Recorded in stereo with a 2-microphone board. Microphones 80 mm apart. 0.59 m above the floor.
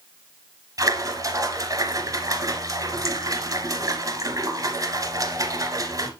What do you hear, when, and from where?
0.8 s a splash: 45° right (ahead or behind), 1.3 m